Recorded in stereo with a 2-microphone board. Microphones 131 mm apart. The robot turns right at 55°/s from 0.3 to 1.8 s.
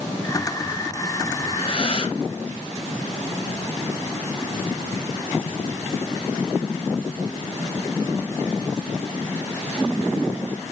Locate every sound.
1.4 s breathing: 65° left (ahead or behind), 3.5 m; by 2.2 s 45° left (ahead or behind), 3.5 m